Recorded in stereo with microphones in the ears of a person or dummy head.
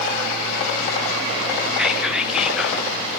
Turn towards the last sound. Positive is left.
turn(degrees=0)  # may be behind; listen again after turning